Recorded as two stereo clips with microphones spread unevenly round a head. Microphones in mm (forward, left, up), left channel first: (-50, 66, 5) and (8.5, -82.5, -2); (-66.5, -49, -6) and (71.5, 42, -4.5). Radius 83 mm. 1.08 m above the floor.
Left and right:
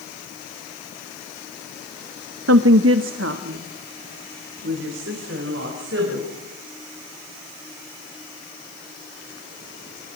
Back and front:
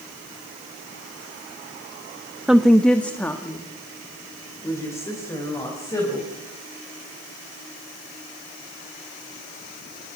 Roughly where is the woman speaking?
Ahead right.